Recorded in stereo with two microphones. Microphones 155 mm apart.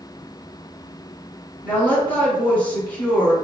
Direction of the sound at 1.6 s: 10° left (ahead or behind).